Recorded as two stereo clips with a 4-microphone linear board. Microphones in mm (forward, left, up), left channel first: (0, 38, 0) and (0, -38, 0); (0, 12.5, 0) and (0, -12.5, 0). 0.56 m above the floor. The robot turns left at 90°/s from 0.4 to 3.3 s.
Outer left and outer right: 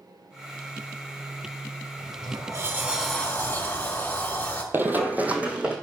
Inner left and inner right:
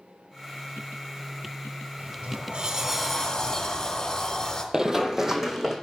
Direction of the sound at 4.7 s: 30° right (ahead or behind).